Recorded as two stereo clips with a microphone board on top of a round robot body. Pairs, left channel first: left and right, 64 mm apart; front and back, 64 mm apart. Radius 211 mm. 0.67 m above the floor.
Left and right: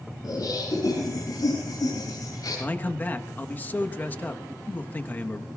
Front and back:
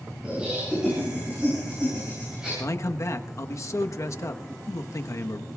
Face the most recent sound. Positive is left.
turn(degrees=30)